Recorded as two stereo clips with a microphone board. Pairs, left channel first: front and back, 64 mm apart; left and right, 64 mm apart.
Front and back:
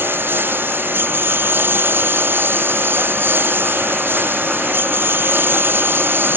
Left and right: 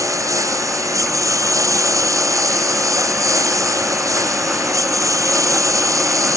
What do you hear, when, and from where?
0.0 s a lawn mower: 125° right